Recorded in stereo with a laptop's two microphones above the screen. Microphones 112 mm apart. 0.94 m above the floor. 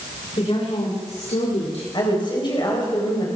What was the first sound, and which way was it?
A woman speaking, 65° left (ahead or behind).